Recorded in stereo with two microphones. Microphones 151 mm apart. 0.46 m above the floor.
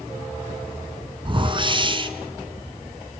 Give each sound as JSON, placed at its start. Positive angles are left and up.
{"t": 1.2, "sound": "a whoosh", "side_deg": -35, "distance_m": 2.5}